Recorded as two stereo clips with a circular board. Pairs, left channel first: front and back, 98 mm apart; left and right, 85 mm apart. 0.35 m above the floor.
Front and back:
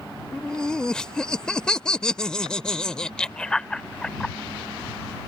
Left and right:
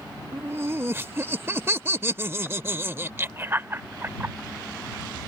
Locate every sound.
0.3 s laughter: 75° right